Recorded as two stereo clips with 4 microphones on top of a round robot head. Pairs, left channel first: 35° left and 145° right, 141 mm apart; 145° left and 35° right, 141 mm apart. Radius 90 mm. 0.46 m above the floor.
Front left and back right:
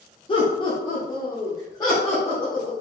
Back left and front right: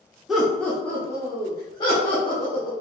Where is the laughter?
50° left, 1.1 m; by 2.7 s 100° left, 2 m.